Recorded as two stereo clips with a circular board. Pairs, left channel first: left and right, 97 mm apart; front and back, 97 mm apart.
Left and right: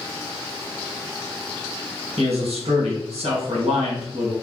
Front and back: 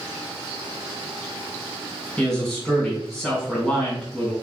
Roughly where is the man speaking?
Right.